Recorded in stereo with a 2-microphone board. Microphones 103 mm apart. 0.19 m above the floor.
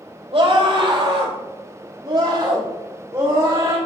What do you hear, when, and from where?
0.3 s a scream: 60° right (ahead or behind), 5 m; by 3.8 s 30° right (ahead or behind), 7.5 m